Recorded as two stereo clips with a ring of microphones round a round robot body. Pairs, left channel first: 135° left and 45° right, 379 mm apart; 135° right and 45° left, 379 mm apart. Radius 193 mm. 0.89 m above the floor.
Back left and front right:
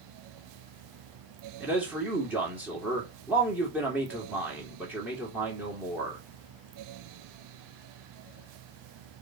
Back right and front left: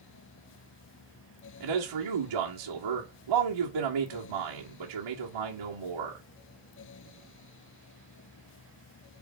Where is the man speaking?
40° left, 2.5 m.